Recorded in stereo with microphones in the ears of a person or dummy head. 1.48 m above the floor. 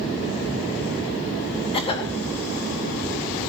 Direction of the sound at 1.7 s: 30° left (ahead or behind).